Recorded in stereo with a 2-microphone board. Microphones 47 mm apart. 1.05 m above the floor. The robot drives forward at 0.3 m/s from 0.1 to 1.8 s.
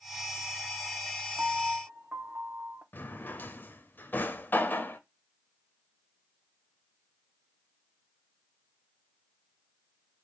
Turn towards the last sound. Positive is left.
turn(degrees=45)  # may be behind; listen again after turning